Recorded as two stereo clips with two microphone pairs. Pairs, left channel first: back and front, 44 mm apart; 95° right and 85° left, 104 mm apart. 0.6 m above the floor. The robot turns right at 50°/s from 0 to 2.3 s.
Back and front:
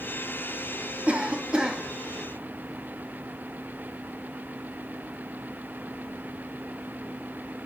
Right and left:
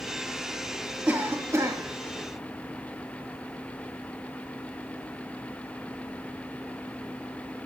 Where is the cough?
20° left, 0.9 m; by 1.8 s 60° left, 0.9 m.